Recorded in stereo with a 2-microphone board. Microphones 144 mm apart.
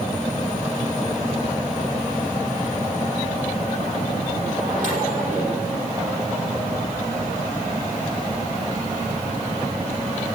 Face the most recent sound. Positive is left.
turn(degrees=-60)  # may be behind; listen again after turning